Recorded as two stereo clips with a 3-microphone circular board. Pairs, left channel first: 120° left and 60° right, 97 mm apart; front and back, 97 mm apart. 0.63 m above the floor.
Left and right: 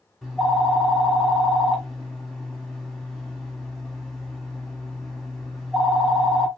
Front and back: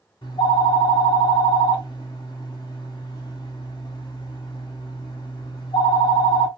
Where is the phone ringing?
30° left, 1.5 m.